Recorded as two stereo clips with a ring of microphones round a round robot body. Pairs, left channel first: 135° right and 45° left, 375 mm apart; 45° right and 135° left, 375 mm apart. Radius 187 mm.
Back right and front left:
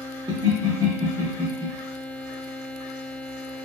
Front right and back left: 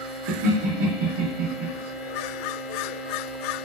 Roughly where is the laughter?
Behind left.